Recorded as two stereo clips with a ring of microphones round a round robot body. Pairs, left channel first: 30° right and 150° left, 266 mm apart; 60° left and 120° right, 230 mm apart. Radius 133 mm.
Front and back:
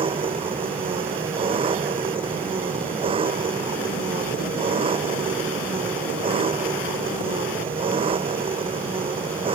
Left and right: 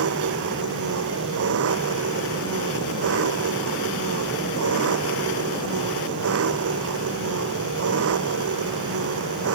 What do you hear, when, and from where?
0.0 s an engine running: 140° right